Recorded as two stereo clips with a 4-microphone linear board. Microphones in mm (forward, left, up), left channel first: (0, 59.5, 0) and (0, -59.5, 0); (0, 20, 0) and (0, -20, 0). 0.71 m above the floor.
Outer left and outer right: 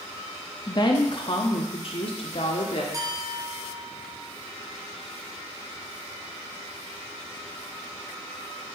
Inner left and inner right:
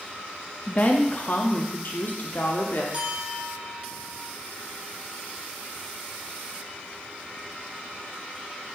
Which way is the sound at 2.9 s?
35° right (ahead or behind).